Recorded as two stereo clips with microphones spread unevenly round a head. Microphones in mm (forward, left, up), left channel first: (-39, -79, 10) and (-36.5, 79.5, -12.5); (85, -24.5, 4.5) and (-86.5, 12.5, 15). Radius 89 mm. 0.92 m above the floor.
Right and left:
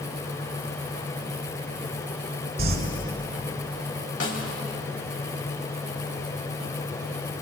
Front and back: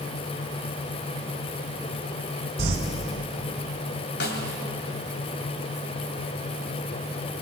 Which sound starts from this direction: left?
Crumpling, at 2.6 s.